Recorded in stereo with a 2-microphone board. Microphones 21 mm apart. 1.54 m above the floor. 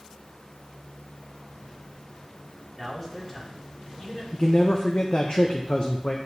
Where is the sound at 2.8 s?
15° left (ahead or behind), 2.5 m; by 4.2 s 35° left (ahead or behind), 3 m.